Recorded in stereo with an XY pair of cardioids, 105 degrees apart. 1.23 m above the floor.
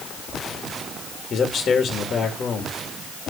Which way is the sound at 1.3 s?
50° left.